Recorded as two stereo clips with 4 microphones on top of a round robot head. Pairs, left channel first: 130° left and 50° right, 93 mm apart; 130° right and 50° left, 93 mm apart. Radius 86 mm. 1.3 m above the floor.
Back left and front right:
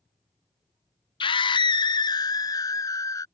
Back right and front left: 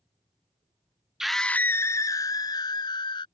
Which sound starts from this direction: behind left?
A scream, at 1.2 s.